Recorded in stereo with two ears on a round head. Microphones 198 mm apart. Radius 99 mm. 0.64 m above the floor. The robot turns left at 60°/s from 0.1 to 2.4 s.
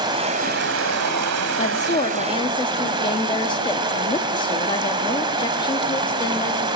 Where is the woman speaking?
85° left, 1.2 m; by 6.7 s 40° left, 1.2 m.